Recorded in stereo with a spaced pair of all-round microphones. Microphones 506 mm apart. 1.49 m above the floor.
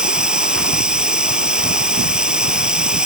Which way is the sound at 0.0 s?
Centre (ahead or behind).